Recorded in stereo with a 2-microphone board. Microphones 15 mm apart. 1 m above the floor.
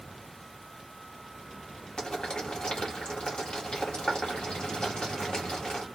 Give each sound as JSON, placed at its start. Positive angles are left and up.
{"t": 2.0, "sound": "boiling", "side_deg": 60, "distance_m": 1.7}